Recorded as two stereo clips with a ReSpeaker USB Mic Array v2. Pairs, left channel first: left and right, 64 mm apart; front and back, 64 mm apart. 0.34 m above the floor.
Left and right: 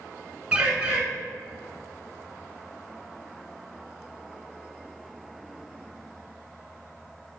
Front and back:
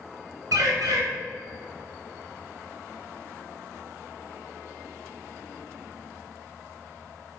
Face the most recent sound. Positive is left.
turn(degrees=-165)